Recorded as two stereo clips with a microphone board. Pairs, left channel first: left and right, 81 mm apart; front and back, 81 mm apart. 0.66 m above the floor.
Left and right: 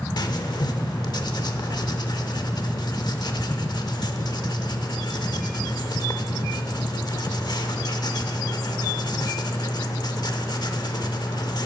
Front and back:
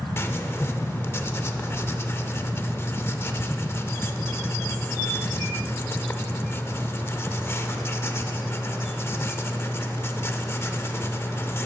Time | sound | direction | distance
0.2 | writing | 60° left | 0.7 m